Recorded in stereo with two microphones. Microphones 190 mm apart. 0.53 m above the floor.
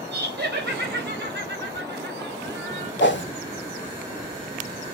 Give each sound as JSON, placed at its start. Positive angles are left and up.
{"t": 0.1, "sound": "laughter", "side_deg": -65, "distance_m": 3.0}
{"t": 3.0, "sound": "a whoosh", "side_deg": 70, "distance_m": 1.2}